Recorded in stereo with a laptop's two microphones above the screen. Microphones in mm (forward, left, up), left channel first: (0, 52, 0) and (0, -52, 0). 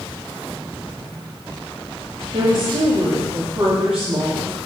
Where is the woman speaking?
55° right (ahead or behind), 2.5 m; by 4.6 s 75° right (ahead or behind), 2.5 m.